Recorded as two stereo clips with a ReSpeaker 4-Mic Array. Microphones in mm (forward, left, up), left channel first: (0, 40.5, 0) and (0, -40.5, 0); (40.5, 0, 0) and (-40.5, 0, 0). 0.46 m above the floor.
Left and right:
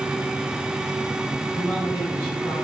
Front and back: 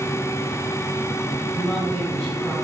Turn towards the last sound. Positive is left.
turn(degrees=90)